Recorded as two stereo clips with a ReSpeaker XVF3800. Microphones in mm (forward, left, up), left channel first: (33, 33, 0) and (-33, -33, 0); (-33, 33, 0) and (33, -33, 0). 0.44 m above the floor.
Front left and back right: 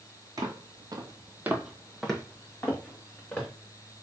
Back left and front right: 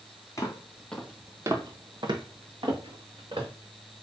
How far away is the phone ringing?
No phone ringing in this recording.